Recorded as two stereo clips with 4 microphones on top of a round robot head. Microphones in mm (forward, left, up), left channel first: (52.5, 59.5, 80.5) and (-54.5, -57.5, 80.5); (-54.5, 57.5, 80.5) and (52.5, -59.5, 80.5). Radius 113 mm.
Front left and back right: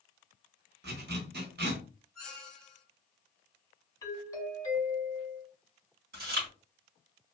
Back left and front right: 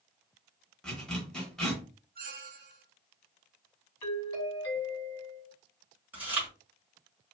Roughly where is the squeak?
Ahead right.